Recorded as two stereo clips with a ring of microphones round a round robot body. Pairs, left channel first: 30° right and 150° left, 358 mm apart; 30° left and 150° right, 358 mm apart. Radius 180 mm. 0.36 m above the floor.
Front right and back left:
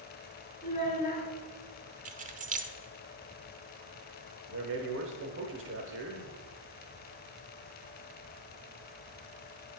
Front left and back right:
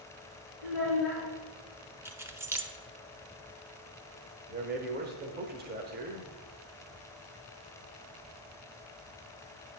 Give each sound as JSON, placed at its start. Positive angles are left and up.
{"t": 0.6, "sound": "a child speaking", "azimuth_deg": -100, "distance_m": 4.0}
{"t": 2.0, "sound": "keys jangling", "azimuth_deg": 140, "distance_m": 0.6}
{"t": 4.5, "sound": "a man speaking", "azimuth_deg": 170, "distance_m": 1.1}